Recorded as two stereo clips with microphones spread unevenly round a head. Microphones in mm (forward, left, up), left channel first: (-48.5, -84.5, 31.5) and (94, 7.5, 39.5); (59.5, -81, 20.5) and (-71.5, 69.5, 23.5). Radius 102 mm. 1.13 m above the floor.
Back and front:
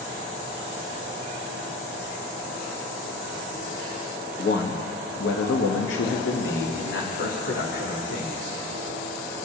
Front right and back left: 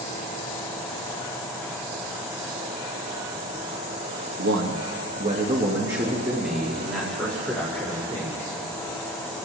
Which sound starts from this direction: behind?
A man speaking, at 4.4 s.